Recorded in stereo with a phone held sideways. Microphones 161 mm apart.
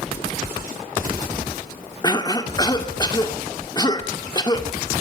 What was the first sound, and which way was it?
A cough, 25° left (ahead or behind).